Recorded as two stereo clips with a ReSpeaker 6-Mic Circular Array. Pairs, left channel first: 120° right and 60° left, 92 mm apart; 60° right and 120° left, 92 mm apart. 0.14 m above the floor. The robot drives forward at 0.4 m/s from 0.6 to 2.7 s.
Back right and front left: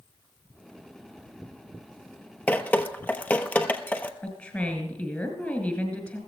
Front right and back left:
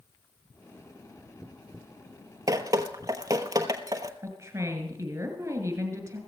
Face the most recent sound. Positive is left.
turn(degrees=170)